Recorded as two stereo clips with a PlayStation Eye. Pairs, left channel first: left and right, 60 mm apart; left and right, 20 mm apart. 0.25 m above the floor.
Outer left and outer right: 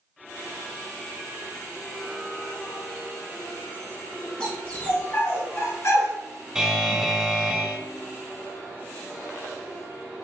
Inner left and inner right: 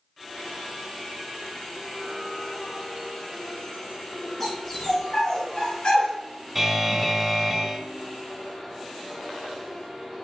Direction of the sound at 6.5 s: 10° right (ahead or behind).